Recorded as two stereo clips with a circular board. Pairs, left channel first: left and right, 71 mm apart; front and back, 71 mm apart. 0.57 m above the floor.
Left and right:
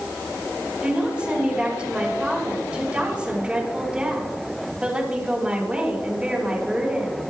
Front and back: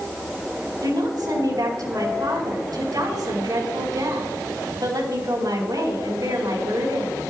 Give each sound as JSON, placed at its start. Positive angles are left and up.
{"t": 0.8, "sound": "a woman speaking", "azimuth_deg": -160, "distance_m": 5.0}